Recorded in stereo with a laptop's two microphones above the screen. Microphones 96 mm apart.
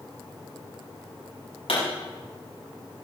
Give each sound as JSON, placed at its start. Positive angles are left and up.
{"t": 1.7, "sound": "a pop", "side_deg": 75, "distance_m": 7.0}